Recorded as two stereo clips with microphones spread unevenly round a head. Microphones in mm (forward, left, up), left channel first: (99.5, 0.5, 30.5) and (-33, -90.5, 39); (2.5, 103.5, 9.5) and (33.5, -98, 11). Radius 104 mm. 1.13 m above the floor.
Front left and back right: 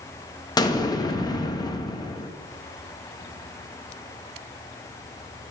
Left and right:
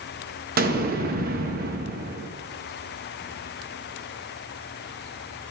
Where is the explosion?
35° right, 0.8 m.